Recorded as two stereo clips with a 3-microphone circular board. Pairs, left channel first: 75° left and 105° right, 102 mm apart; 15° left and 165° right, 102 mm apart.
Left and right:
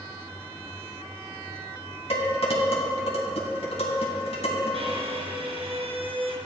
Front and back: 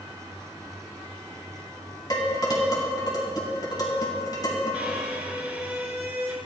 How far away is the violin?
About 1.7 m.